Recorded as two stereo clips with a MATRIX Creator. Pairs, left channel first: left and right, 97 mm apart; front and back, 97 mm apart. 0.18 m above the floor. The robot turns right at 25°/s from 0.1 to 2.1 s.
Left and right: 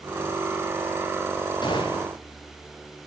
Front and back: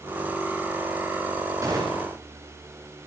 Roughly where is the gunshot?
Behind left.